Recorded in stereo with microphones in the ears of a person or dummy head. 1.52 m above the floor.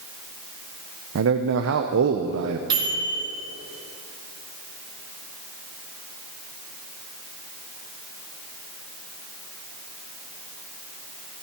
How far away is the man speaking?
About 0.6 m.